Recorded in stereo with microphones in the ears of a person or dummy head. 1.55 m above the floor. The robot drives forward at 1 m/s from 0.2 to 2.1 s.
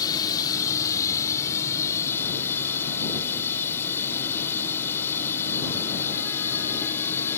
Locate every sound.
0.0 s running water: 20° left (ahead or behind); by 7.4 s 15° left (ahead or behind)